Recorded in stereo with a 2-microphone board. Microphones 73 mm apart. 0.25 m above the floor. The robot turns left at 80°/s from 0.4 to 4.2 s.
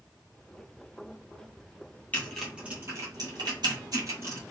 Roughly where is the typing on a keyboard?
Left.